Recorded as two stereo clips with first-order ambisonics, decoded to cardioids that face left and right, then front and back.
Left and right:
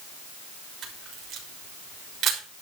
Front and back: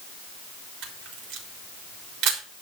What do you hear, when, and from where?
0.8 s a camera shutter: 145° right, 4 m